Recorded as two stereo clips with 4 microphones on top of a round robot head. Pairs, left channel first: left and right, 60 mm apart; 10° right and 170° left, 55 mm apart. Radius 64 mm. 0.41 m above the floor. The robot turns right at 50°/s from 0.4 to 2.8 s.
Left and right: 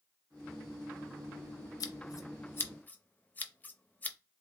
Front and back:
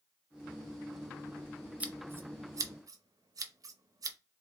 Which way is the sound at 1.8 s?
105° left.